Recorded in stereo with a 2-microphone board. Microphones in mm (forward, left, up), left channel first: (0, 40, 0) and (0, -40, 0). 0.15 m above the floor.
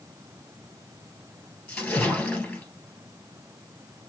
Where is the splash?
15° left (ahead or behind), 2.5 m.